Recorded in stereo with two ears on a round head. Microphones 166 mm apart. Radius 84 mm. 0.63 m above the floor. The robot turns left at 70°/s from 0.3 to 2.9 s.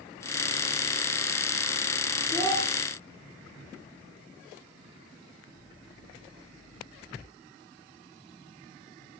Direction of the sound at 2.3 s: 5° right (ahead or behind).